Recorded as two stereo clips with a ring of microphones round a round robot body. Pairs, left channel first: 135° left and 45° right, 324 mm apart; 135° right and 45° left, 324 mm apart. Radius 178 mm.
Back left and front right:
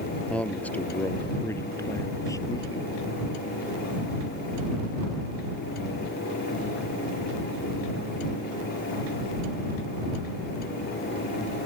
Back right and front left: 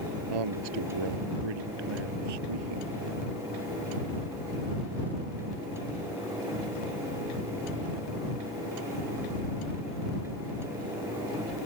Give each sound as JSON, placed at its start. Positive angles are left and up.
{"t": 0.3, "sound": "a man speaking", "azimuth_deg": 50}